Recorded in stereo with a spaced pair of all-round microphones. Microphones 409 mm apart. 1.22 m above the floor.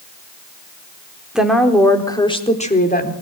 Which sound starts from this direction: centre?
A woman speaking, at 1.4 s.